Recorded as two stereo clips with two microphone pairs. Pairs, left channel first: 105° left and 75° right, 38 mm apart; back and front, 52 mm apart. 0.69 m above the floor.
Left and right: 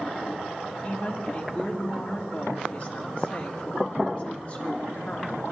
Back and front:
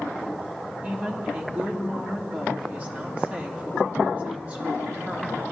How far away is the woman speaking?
About 1.9 m.